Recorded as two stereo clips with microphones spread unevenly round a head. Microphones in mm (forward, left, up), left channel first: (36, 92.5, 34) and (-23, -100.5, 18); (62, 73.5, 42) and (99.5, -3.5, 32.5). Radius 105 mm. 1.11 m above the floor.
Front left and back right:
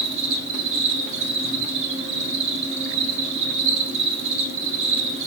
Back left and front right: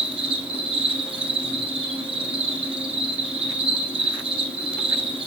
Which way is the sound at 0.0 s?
75° right.